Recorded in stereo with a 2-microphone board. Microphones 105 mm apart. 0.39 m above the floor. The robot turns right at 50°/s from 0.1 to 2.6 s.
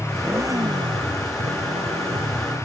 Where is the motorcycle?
170° right; by 2.6 s 45° right.